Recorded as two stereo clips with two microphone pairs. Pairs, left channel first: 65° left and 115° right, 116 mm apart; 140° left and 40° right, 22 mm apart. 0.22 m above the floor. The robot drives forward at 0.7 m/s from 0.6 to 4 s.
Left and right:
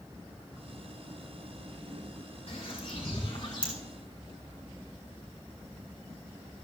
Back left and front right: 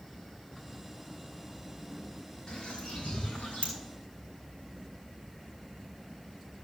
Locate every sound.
2.5 s a bird: 100° left, 2.5 m; by 3.7 s 115° left, 3 m